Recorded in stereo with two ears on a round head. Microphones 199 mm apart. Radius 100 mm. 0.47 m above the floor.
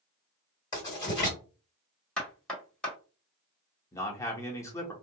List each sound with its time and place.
0.7 s writing: 20° left (ahead or behind), 1.8 m
2.2 s knocking: 5° left (ahead or behind), 1.1 m
3.9 s a man speaking: 15° left (ahead or behind), 0.9 m